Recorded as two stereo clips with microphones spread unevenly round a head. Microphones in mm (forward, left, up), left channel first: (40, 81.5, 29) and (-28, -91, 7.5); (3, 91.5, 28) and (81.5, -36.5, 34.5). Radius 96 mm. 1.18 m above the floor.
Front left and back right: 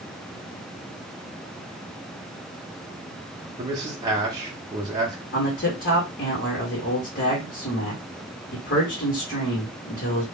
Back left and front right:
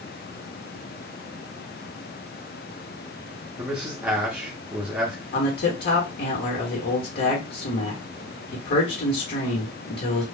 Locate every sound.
3.6 s a man speaking: 140° right, 0.6 m
5.3 s a man speaking: 105° left, 1.1 m